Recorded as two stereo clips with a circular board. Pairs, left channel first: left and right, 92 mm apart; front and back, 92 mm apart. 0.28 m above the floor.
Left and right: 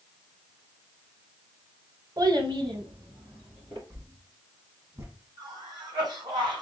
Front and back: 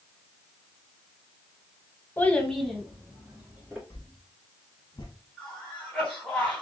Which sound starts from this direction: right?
A cough, at 5.4 s.